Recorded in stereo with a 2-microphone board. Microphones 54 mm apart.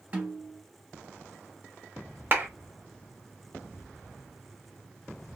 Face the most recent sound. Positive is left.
turn(degrees=-40)  # may be behind; listen again after turning